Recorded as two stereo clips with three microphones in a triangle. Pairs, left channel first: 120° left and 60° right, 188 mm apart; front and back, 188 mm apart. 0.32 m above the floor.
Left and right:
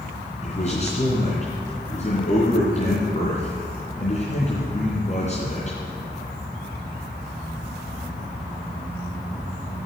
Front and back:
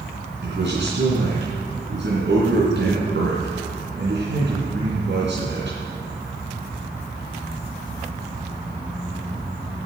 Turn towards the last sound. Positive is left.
turn(degrees=170)